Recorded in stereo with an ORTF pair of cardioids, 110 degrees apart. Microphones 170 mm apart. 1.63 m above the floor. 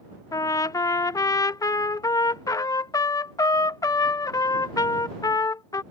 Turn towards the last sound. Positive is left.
turn(degrees=20)